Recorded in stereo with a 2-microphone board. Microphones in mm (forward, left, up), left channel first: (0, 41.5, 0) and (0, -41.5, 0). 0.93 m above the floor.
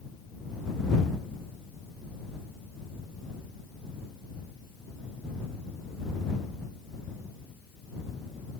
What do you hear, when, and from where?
Only background noise.